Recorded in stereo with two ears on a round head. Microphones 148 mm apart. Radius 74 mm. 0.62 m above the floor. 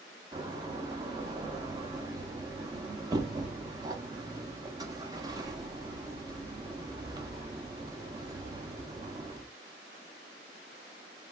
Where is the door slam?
25° right (ahead or behind), 0.5 m.